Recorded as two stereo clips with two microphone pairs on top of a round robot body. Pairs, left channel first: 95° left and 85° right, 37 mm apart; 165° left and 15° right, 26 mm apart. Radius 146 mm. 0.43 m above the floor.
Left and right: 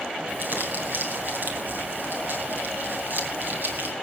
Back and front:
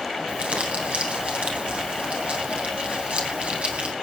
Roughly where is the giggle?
No giggle in this recording.